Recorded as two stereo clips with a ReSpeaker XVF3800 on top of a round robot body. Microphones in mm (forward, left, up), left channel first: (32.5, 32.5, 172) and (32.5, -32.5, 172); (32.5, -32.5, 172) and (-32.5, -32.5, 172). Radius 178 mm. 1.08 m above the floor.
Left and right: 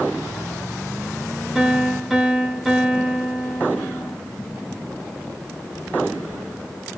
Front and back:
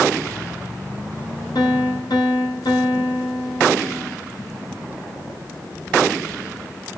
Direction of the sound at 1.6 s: 5° right.